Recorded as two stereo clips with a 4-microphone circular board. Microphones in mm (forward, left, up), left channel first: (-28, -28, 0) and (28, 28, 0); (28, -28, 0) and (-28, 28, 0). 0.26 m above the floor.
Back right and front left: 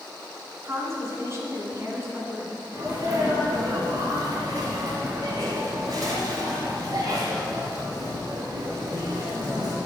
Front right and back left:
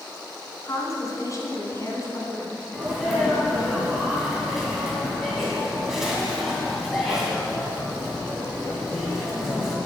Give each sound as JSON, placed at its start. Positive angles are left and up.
{"t": 0.6, "sound": "a woman speaking", "azimuth_deg": -5, "distance_m": 2.5}
{"t": 2.7, "sound": "a sneeze", "azimuth_deg": 50, "distance_m": 2.0}